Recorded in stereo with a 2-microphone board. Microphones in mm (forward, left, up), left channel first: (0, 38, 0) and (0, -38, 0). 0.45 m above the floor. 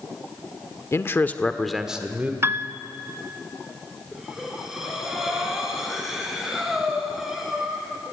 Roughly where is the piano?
Right.